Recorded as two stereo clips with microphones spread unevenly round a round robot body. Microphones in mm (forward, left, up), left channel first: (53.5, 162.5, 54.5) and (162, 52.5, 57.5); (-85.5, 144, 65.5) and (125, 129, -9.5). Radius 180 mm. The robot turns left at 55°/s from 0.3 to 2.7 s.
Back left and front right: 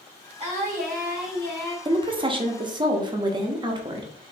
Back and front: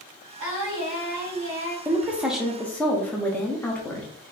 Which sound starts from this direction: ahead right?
A woman speaking, at 1.9 s.